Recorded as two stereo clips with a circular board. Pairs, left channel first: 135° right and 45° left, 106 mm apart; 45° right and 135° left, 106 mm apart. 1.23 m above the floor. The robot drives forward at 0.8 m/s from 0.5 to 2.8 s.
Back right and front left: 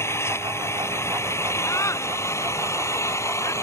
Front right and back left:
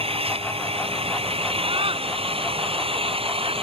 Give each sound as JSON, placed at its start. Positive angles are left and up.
{"t": 0.0, "sound": "an engine running", "azimuth_deg": 160}
{"t": 1.7, "sound": "a scream", "azimuth_deg": 165}